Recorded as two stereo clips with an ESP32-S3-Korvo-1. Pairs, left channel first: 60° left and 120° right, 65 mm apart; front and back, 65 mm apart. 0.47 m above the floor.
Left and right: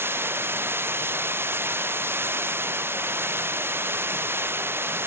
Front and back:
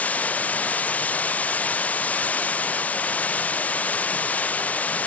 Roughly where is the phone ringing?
I don't hear a phone ringing.